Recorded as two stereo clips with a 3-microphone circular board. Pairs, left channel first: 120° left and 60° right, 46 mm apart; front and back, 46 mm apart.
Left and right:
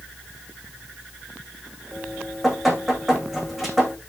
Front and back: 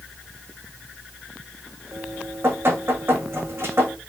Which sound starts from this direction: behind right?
Dripping, at 1.9 s.